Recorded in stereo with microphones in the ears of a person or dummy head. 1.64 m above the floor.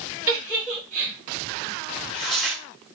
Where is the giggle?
5° right (ahead or behind), 1.7 m.